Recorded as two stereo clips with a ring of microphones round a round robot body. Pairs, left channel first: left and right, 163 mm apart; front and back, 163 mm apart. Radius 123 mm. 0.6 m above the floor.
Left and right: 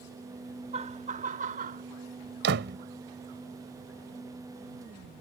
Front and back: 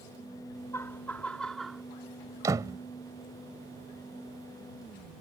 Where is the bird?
No bird in this recording.